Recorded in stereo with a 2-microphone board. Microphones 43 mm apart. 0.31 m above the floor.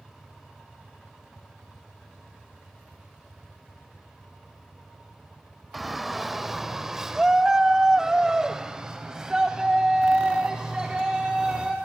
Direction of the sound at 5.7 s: 5° right (ahead or behind).